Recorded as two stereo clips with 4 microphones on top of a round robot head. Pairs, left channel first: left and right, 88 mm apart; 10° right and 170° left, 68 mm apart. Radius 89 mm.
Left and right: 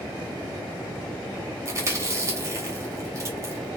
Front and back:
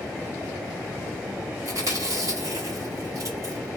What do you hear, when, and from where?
1.6 s chewing: 145° right, 3.5 m